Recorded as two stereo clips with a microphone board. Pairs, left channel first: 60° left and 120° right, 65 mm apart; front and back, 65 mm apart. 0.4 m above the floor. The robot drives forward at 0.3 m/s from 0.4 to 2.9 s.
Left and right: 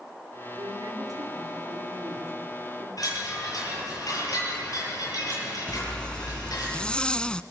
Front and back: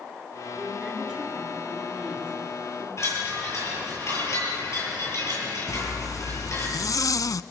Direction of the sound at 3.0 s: 40° left.